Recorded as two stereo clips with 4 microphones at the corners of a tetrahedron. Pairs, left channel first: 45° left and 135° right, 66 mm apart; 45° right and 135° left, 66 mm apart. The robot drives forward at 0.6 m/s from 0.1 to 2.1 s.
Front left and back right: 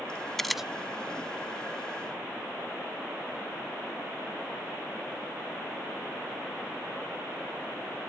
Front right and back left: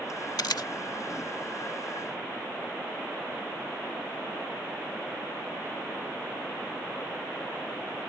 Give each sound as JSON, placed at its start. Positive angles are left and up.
{"t": 0.4, "sound": "a camera shutter", "azimuth_deg": -40}